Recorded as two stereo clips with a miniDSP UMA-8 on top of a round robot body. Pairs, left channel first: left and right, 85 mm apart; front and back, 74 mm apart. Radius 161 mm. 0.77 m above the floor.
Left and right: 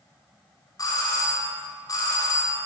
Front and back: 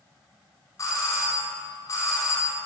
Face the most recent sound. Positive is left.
turn(degrees=45)